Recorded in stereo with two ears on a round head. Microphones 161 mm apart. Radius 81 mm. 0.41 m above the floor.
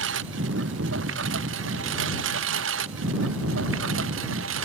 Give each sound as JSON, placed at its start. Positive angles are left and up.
{"t": 0.0, "sound": "a lawn mower", "side_deg": -75}